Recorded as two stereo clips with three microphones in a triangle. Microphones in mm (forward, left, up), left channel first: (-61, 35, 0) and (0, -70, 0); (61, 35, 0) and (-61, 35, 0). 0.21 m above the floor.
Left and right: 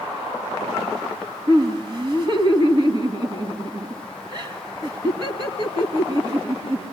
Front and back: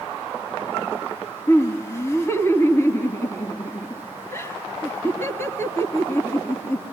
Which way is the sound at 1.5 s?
55° right.